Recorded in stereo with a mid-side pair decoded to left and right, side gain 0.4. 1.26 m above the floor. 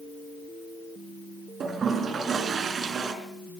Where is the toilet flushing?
55° right, 4 m.